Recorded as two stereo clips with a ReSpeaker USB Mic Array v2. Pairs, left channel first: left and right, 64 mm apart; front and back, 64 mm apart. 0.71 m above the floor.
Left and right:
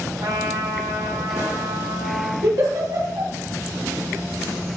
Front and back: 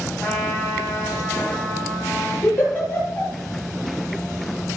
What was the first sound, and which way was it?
A trumpet, 85° right.